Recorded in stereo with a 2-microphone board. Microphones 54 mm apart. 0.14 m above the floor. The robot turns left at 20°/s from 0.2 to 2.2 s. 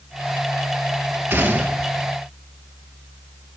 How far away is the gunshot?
About 1.2 m.